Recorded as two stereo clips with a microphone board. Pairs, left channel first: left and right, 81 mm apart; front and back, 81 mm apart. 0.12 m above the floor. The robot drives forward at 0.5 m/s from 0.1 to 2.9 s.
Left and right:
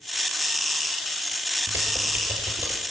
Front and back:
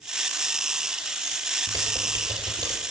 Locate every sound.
1.7 s typing on a keyboard: 145° right, 2 m; by 2.8 s 155° right, 2.5 m